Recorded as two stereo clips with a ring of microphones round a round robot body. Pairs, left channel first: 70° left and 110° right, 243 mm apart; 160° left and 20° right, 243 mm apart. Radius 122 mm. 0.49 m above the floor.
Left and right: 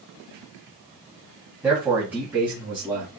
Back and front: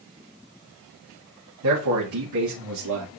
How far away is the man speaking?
About 3 m.